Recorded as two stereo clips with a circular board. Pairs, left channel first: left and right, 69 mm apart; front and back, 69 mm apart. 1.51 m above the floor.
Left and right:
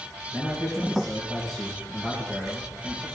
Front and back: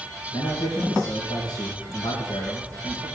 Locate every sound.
0.3 s a man speaking: 5° right, 2 m